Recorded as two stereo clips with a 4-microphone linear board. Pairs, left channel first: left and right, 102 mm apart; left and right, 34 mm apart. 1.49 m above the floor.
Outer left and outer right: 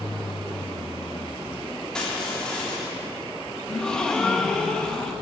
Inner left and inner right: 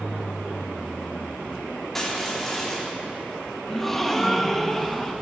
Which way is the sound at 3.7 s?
5° left (ahead or behind).